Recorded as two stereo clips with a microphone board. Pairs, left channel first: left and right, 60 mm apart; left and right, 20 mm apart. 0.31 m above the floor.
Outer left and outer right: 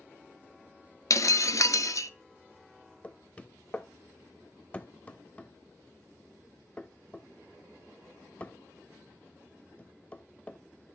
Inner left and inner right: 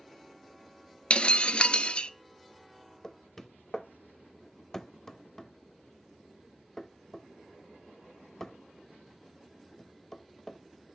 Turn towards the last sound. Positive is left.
turn(degrees=25)  # may be behind; listen again after turning